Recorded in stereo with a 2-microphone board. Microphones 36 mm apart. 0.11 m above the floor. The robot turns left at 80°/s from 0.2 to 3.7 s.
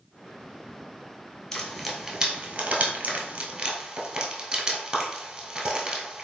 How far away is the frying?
About 1.0 m.